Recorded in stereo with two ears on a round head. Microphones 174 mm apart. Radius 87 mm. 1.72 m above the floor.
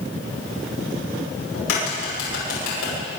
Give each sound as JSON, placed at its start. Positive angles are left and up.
{"t": 1.5, "sound": "a crack", "side_deg": 85, "distance_m": 10.0}